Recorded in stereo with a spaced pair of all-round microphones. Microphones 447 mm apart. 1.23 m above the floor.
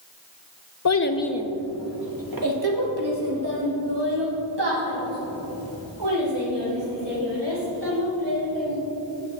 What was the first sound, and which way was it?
A child speaking, 45° left (ahead or behind).